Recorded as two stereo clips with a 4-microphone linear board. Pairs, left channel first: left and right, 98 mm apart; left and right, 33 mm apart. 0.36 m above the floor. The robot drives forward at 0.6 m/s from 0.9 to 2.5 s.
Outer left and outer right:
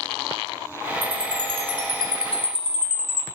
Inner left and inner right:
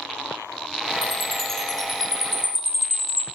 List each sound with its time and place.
1.0 s a chime: 10° left (ahead or behind), 2.5 m